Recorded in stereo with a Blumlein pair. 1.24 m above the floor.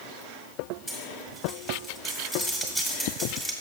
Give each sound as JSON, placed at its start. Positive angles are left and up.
{"t": 0.9, "sound": "cutlery clinking", "azimuth_deg": 5, "distance_m": 1.9}